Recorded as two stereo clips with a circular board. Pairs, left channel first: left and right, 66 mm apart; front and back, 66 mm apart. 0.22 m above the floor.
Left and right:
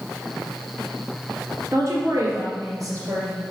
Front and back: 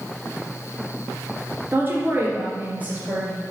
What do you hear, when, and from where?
1.7 s a woman speaking: 125° right, 2.5 m; by 3.4 s 110° right, 3.5 m